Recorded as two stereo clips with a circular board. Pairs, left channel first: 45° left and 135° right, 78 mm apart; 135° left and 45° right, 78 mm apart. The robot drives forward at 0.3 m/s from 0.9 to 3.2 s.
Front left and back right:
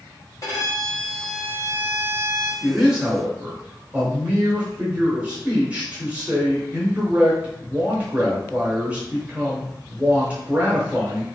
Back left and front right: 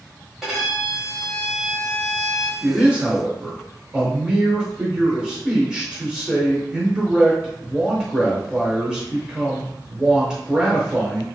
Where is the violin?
45° left, 1.6 m; by 2.5 s 65° left, 1.4 m.